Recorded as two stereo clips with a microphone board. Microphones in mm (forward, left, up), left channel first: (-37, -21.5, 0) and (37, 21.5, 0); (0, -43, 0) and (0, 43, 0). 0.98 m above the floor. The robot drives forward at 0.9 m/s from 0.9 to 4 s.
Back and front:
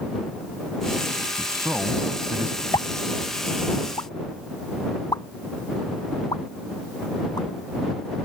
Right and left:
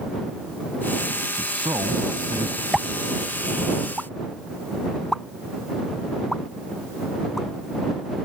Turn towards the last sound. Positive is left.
turn(degrees=-175)